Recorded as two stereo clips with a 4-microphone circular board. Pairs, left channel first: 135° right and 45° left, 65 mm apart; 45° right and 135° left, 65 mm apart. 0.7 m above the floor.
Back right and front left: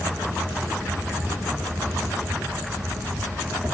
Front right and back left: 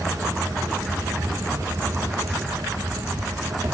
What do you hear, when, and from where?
0.0 s an insect: 110° left, 4.5 m